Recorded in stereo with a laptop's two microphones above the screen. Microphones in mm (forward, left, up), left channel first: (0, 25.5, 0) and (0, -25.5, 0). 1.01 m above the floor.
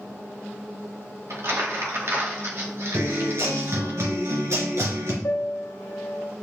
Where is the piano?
70° left (ahead or behind), 0.9 m.